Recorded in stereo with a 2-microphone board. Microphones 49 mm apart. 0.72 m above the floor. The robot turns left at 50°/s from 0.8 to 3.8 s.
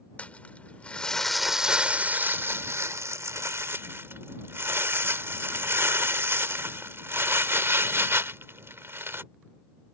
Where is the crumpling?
25° left; by 9.2 s 125° right.